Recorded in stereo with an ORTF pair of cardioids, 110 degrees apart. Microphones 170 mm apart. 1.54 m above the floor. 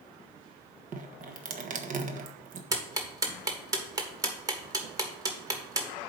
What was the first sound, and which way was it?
Dripping, 50° right.